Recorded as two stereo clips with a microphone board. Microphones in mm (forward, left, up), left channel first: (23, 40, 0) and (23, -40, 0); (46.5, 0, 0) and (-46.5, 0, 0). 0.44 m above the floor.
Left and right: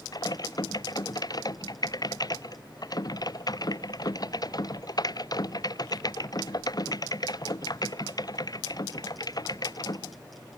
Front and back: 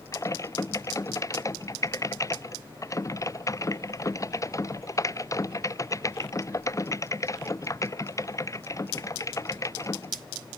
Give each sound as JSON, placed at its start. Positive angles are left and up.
{"t": 0.1, "sound": "typing on a keyboard", "azimuth_deg": 55}